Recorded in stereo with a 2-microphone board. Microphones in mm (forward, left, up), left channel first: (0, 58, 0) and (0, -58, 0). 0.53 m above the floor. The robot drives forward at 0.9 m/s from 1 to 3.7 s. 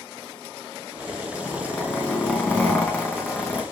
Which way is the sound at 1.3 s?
10° left (ahead or behind).